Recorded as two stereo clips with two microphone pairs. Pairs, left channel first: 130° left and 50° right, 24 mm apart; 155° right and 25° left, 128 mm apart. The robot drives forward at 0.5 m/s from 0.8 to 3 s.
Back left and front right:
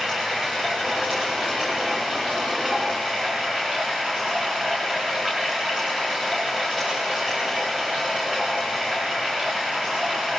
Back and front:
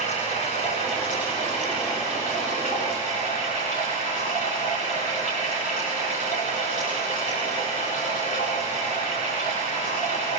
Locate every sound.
0.0 s running water: 130° right, 7 m; by 10.4 s 140° right, 7.5 m